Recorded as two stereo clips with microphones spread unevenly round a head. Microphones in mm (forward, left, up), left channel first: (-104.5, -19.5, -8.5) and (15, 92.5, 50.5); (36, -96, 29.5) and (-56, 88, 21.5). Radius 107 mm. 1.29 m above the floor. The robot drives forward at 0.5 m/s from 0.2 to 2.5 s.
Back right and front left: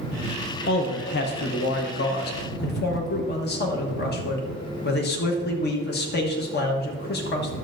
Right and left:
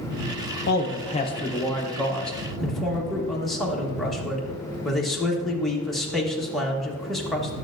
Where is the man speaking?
105° right, 0.6 m; by 7.5 s 155° right, 1.2 m.